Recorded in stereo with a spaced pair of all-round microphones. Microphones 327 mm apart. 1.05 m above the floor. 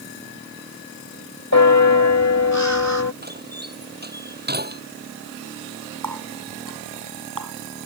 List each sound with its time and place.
1.5 s a bell: 55° left (ahead or behind)
3.2 s a door slam: 30° right (ahead or behind)
6.0 s a running tap: 85° right